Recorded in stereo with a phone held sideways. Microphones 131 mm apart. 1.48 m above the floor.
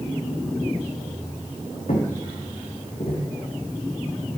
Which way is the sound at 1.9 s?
65° left (ahead or behind).